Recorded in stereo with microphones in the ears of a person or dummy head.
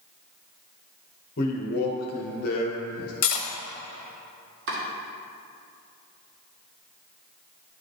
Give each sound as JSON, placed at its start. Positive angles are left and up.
{"t": 1.4, "sound": "a man speaking", "side_deg": 55, "distance_m": 1.2}
{"t": 3.2, "sound": "cutlery clinking", "side_deg": 50, "distance_m": 1.3}
{"t": 4.7, "sound": "chopping", "side_deg": -60, "distance_m": 1.9}